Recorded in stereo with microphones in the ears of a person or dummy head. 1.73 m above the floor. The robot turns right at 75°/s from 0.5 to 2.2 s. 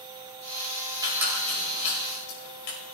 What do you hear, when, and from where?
1.0 s a squeak: 25° right (ahead or behind), 5.5 m; by 2.8 s 65° left (ahead or behind), 5.5 m